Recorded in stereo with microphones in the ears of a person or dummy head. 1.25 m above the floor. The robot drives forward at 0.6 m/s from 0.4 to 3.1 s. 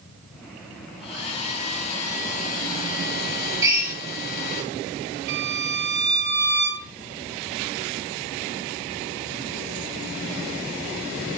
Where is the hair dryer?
35° left (ahead or behind), 2.5 m; by 4.6 s 50° left (ahead or behind), 1.7 m.